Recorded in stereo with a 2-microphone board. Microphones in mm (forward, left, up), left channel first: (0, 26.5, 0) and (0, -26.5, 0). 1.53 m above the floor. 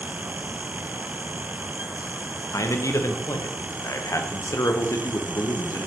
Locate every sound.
2.5 s a man speaking: 80° left, 0.6 m